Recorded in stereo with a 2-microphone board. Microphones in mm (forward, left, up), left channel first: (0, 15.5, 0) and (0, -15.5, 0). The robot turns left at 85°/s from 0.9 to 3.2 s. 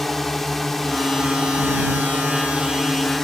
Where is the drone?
10° left; by 3.2 s 170° left.